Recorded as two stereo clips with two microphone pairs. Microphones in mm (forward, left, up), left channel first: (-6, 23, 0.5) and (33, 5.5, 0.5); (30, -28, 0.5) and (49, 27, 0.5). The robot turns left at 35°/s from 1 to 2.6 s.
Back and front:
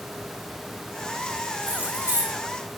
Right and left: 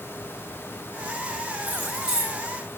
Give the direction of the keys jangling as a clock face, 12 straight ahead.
12 o'clock.